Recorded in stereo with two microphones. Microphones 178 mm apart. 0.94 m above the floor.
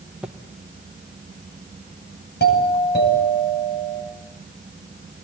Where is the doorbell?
70° left (ahead or behind), 9.5 m.